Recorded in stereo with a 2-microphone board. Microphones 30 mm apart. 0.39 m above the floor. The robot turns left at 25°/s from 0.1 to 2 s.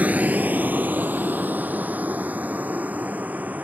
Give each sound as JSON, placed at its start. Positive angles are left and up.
{"t": 0.0, "sound": "a vehicle", "side_deg": -55}